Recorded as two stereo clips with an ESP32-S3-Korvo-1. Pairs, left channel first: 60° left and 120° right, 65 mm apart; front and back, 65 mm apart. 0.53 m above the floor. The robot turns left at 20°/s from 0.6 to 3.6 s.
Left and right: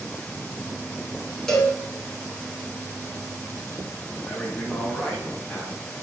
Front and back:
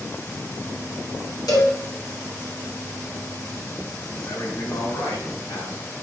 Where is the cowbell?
20° right, 3.5 m; by 1.8 s 25° right, 3.5 m.